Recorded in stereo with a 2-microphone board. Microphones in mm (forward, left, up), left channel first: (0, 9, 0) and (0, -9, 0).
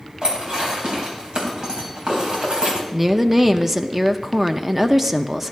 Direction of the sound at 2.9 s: 10° right (ahead or behind).